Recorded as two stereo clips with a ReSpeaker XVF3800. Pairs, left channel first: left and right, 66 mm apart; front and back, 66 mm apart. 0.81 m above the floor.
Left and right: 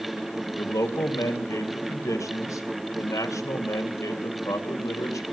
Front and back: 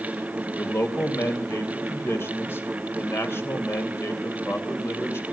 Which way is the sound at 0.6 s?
50° left.